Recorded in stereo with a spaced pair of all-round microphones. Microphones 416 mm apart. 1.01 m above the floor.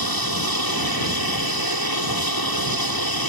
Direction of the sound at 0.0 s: 60° left (ahead or behind).